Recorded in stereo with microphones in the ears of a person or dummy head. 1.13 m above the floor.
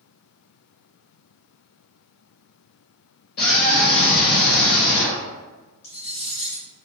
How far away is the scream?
About 0.8 m.